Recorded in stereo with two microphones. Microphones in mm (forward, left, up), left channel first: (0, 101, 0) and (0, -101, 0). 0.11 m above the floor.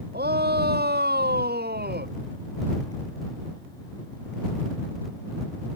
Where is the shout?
45° right (ahead or behind).